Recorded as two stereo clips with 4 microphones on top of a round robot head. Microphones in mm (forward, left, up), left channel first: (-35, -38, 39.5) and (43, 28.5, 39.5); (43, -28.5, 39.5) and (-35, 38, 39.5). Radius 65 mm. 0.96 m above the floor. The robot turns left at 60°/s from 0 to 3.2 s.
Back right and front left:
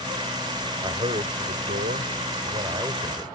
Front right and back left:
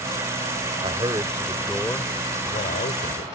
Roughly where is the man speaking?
Left.